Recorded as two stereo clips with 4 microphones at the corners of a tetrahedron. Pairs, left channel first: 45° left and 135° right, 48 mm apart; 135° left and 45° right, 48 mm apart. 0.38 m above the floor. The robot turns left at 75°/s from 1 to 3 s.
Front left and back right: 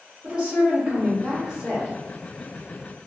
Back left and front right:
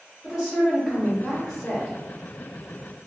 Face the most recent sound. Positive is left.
turn(degrees=110)